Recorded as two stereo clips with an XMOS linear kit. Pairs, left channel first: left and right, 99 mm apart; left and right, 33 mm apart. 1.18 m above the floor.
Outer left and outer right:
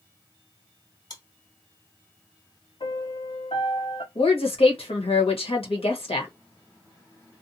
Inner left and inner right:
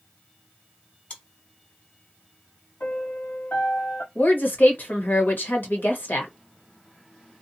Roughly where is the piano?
Left.